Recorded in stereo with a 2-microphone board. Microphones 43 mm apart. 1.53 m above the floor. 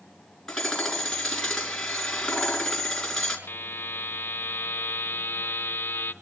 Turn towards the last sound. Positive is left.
turn(degrees=60)  # may be behind; listen again after turning